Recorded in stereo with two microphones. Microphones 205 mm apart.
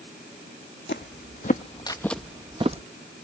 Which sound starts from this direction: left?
Footsteps, at 0.9 s.